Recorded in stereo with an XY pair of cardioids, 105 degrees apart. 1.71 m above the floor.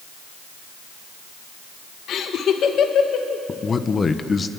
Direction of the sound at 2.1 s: 65° left.